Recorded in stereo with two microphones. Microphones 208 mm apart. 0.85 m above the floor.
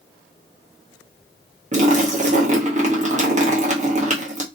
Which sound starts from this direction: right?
A splash, at 1.7 s.